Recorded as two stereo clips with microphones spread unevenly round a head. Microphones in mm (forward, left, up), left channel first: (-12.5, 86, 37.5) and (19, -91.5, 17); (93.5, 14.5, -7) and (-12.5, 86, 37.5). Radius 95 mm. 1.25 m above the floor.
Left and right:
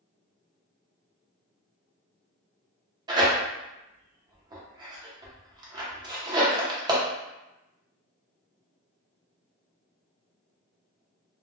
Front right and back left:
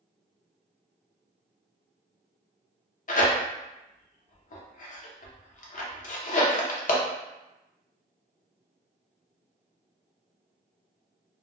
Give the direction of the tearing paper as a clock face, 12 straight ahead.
12 o'clock.